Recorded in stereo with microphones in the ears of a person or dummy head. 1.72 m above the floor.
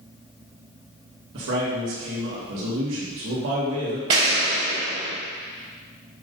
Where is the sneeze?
I don't hear a sneeze.